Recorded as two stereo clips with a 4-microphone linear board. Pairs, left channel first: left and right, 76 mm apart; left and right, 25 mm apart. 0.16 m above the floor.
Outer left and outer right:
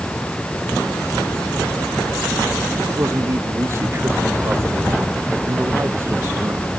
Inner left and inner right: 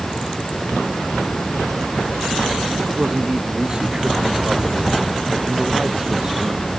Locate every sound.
2.9 s a man speaking: 35° right (ahead or behind)